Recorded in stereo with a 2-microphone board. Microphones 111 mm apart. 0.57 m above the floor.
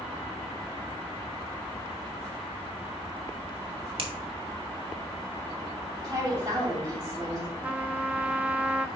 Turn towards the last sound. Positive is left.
turn(degrees=-10)  # may be behind; listen again after turning